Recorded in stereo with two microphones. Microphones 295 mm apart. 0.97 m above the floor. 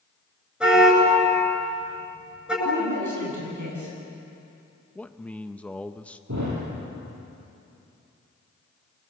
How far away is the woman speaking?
About 9 m.